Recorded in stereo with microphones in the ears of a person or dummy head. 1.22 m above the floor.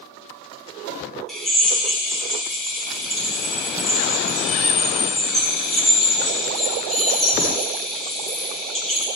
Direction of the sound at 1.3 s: Centre (ahead or behind).